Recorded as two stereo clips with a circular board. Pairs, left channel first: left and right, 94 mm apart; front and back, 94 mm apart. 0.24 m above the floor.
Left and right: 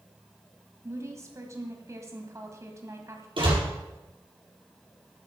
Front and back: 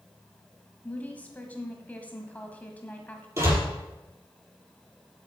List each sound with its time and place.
0.8 s a woman speaking: 65° right, 1.8 m
3.4 s a door slam: 120° right, 4.5 m